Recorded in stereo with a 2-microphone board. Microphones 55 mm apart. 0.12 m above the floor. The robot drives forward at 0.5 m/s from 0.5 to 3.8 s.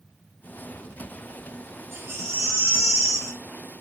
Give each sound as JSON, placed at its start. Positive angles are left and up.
{"t": 1.9, "sound": "a baby crying", "side_deg": -50, "distance_m": 3.0}